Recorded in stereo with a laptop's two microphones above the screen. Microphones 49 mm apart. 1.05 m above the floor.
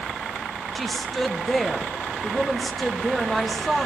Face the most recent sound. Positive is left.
turn(degrees=5)  # may be behind; listen again after turning